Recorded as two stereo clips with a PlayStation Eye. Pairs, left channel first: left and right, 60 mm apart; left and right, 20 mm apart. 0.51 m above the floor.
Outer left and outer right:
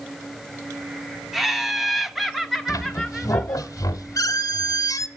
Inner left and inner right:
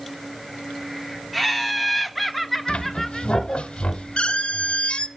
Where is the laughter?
Centre (ahead or behind), 0.9 m.